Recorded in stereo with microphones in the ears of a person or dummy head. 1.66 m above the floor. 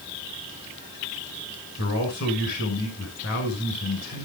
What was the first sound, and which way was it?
A man speaking, 60° left (ahead or behind).